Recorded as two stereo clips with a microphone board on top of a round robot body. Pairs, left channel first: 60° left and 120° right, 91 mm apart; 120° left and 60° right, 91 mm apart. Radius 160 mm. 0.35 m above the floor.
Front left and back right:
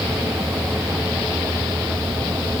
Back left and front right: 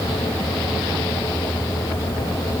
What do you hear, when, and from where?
Only background noise.